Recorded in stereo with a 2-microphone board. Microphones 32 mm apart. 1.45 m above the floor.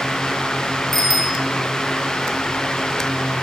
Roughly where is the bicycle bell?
Centre.